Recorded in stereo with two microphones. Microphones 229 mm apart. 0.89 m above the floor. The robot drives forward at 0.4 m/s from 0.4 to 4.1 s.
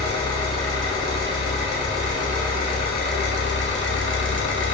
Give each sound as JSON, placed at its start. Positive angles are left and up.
{"t": 0.0, "sound": "an engine running", "side_deg": 20, "distance_m": 1.7}